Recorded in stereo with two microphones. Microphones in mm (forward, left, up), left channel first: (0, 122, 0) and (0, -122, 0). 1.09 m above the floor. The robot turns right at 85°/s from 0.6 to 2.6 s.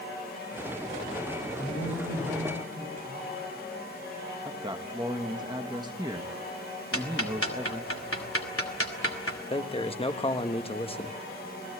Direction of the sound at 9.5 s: 25° left (ahead or behind).